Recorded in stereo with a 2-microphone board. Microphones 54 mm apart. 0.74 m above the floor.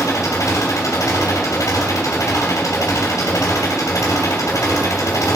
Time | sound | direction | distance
0.0 | an engine running | 85° left | 3 m